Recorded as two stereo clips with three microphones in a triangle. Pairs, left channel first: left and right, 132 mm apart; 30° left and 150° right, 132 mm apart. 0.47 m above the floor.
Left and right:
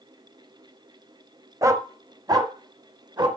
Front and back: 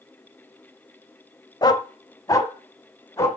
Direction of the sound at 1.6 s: 30° right.